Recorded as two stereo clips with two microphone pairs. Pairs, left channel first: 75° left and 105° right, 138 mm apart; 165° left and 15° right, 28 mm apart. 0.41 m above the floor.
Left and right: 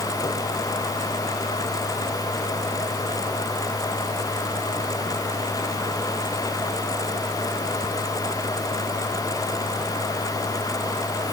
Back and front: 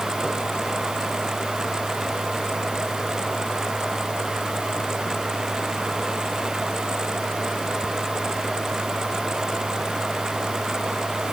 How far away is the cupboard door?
I don't hear a cupboard door.